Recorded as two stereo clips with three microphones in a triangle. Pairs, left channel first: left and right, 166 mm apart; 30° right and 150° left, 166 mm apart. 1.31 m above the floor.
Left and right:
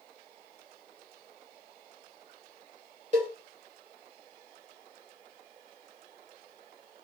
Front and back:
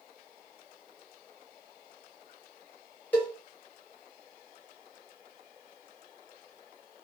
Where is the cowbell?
105° right, 1.3 m.